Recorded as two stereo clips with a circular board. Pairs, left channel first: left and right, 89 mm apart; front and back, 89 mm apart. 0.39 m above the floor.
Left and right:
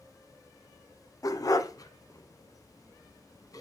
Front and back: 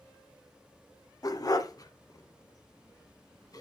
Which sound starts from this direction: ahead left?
A dog barking, at 1.2 s.